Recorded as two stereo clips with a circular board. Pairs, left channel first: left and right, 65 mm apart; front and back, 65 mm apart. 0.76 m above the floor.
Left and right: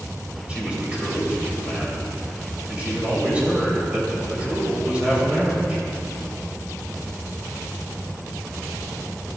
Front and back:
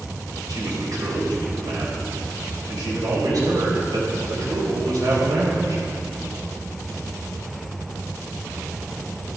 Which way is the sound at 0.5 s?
160° right.